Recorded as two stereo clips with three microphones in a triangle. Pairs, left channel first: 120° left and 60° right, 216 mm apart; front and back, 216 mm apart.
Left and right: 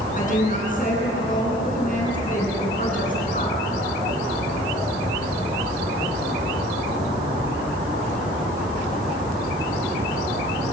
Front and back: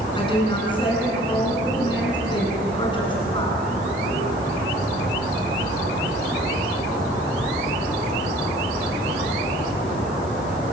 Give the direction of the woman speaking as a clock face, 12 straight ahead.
10 o'clock.